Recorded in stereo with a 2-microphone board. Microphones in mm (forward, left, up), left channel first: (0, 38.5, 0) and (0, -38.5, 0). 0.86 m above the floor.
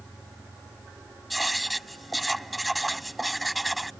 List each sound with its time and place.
1.3 s writing: centre (ahead or behind)